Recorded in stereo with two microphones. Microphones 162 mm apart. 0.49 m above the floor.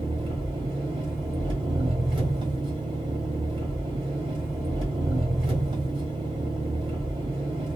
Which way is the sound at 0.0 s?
30° right (ahead or behind).